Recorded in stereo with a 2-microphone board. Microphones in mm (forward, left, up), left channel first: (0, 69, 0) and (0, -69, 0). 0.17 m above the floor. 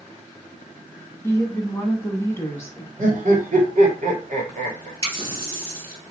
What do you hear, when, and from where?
1.2 s a woman speaking: 20° left (ahead or behind), 1.3 m
3.0 s laughter: 60° right (ahead or behind), 2.5 m
5.0 s a running tap: 40° right (ahead or behind), 2 m